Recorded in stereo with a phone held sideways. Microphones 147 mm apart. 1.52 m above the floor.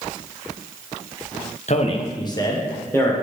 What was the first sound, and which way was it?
A man speaking, 50° left (ahead or behind).